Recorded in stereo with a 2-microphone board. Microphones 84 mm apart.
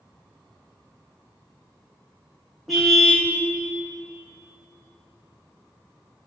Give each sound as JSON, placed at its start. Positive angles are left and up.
{"t": 2.7, "sound": "a car horn", "side_deg": 0, "distance_m": 5.5}